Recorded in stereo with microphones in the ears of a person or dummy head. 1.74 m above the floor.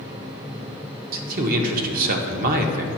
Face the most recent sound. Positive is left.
turn(degrees=-50)  # may be behind; listen again after turning